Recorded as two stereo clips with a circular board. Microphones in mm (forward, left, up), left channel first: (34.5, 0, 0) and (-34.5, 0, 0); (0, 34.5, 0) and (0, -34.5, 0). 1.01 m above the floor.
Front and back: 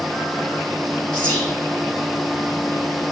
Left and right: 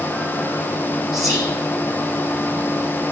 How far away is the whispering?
About 2 m.